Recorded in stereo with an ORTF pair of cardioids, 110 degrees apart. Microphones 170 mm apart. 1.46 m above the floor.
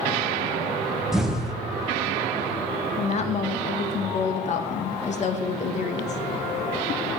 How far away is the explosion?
About 1.2 m.